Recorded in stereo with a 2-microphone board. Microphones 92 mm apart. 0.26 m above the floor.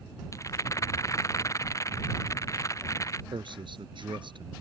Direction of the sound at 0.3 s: 35° left (ahead or behind).